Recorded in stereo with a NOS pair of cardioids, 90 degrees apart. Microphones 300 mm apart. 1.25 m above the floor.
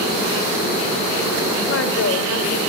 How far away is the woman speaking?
About 4.5 m.